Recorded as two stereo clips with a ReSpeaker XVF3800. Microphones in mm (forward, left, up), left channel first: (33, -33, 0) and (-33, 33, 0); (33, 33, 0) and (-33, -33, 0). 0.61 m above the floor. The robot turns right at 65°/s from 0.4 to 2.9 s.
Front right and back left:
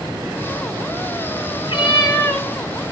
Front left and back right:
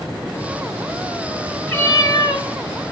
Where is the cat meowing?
30° right, 1.8 m; by 2.5 s 20° left, 1.8 m.